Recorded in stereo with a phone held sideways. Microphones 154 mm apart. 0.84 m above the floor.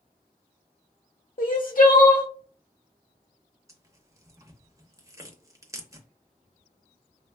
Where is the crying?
60° left (ahead or behind), 0.7 m.